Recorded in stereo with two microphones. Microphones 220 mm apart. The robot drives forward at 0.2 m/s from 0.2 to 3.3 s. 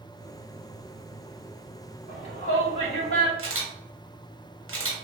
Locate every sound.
2.1 s a shout: 30° left (ahead or behind), 1.8 m; by 3.3 s 25° left (ahead or behind), 2.0 m
3.4 s a camera shutter: 70° right (ahead or behind), 0.9 m